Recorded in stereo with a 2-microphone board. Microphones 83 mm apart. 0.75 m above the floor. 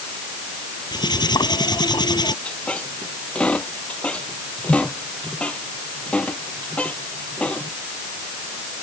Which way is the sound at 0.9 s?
55° left (ahead or behind).